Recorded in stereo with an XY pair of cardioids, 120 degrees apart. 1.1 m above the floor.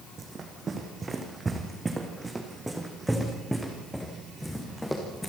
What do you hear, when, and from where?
0.2 s running footsteps: 35° right, 3.5 m; by 5.3 s 10° left, 5.5 m